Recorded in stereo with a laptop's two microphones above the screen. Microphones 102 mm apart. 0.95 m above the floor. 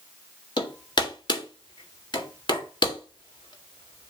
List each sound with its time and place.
0.6 s hammering: 45° left (ahead or behind), 1.7 m